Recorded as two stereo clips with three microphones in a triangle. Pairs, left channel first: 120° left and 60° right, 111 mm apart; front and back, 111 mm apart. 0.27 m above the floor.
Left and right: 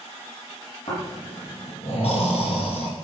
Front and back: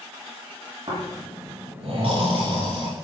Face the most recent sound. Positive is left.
turn(degrees=145)